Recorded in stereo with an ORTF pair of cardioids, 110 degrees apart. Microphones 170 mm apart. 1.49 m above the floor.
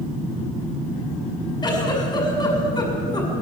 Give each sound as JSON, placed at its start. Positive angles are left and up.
{"t": 1.6, "sound": "a giggle", "azimuth_deg": 25, "distance_m": 6.5}